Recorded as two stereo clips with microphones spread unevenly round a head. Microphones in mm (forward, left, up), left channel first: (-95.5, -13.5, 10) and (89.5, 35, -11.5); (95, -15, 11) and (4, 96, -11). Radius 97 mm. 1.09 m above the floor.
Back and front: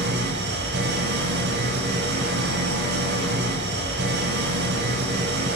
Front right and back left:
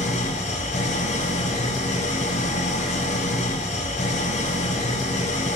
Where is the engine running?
20° right, 5.5 m.